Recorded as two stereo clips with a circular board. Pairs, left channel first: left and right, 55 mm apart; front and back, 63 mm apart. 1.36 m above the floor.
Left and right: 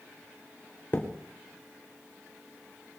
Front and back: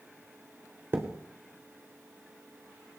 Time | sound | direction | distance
0.9 | a thud | 135° left | 3 m